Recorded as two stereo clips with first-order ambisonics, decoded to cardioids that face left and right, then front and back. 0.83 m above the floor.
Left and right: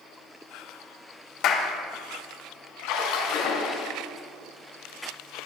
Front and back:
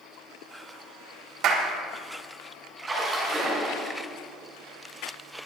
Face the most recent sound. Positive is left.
turn(degrees=105)